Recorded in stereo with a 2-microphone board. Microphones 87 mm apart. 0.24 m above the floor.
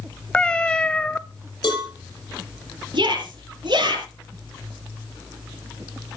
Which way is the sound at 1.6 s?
55° left (ahead or behind).